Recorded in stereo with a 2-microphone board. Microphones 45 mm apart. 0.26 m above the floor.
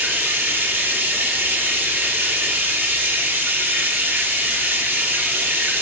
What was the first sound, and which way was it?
Running water, 45° right (ahead or behind).